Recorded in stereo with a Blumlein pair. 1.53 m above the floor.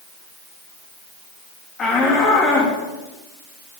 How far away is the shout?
About 3.5 m.